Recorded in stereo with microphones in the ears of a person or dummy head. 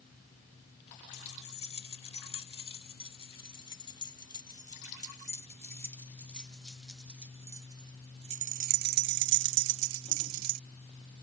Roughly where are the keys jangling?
Left.